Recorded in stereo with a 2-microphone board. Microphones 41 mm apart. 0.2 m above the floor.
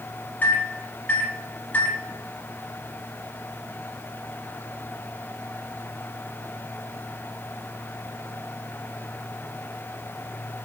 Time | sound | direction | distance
0.4 | a microwave | 40° left (ahead or behind) | 1.0 m